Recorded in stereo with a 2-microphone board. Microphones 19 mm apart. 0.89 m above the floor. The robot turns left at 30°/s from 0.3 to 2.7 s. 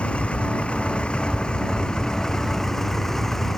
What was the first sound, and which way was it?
A vehicle, 90° left.